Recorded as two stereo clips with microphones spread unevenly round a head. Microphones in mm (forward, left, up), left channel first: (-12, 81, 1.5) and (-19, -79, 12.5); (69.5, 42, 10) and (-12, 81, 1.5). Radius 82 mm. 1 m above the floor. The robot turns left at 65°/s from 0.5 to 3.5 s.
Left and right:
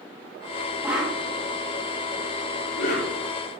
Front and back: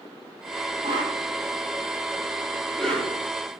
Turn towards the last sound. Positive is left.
turn(degrees=15)